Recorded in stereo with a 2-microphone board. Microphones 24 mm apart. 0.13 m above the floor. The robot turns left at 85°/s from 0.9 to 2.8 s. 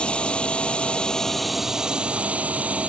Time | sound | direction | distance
0.0 | a drone | 50° left | ?